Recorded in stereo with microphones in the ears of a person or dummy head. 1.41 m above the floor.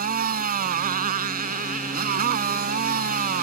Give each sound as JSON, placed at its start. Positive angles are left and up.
{"t": 0.0, "sound": "a motorcycle", "side_deg": -55}